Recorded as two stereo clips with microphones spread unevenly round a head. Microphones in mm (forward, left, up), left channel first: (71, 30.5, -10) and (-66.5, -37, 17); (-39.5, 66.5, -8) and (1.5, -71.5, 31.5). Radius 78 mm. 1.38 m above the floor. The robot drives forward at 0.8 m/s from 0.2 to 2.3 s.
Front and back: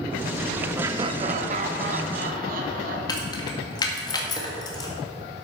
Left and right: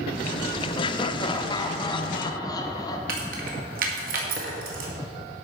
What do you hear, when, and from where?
0.8 s laughter: 125° left, 0.6 m; by 3.0 s 165° left, 1.5 m
3.1 s keys jangling: 40° right, 1.8 m